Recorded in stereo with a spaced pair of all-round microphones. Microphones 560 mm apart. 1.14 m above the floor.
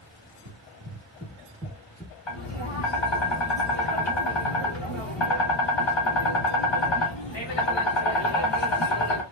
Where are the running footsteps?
30° right (ahead or behind), 1.8 m; by 2.2 s 10° left (ahead or behind), 1.1 m.